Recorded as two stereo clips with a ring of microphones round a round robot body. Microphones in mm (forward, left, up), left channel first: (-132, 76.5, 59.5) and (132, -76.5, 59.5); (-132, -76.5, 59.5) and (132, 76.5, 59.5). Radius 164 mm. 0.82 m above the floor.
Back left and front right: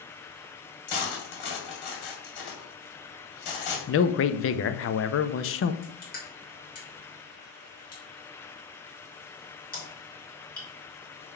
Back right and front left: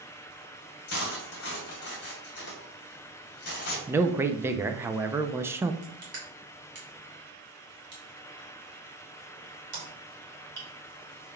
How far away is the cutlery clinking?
About 2 m.